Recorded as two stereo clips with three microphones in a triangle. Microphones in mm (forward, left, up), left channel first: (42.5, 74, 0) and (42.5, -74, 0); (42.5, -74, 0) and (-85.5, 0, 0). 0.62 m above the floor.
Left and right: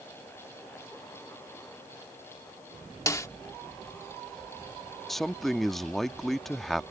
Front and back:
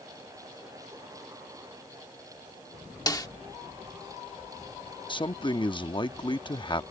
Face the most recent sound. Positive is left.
turn(degrees=0)